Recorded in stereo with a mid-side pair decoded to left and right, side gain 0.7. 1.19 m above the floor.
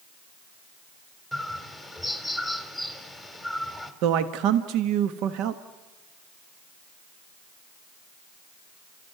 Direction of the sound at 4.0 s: 65° right.